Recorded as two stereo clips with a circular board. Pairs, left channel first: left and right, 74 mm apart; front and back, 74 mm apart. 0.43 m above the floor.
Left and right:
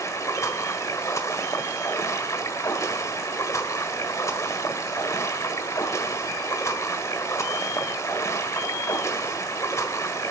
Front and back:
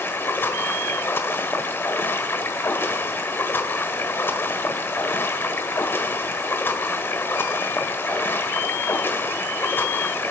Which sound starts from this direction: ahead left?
Running water, at 0.0 s.